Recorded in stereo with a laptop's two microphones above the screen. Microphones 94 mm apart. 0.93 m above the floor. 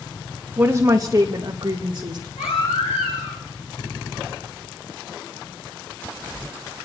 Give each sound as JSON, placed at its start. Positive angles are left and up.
{"t": 0.6, "sound": "a woman speaking", "side_deg": -20, "distance_m": 0.6}
{"t": 2.4, "sound": "a baby crying", "side_deg": 85, "distance_m": 7.5}